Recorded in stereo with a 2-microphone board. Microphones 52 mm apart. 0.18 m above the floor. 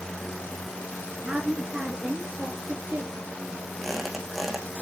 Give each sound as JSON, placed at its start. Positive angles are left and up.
{"t": 1.2, "sound": "a woman speaking", "side_deg": -20, "distance_m": 2.0}
{"t": 3.8, "sound": "a squeak", "side_deg": 0, "distance_m": 2.5}